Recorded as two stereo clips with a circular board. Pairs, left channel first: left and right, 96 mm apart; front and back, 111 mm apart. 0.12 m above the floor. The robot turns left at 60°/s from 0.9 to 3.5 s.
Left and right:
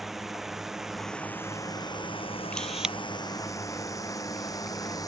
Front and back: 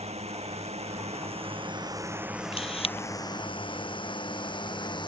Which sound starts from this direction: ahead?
A camera shutter, at 2.5 s.